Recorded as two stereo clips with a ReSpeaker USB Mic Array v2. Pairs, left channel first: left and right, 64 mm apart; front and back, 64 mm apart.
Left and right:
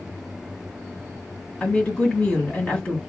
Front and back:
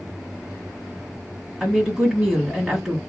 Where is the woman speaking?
115° left, 1.5 m.